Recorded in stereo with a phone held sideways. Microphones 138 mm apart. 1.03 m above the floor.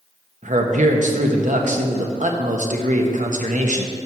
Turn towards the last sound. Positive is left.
turn(degrees=-65)  # may be behind; listen again after turning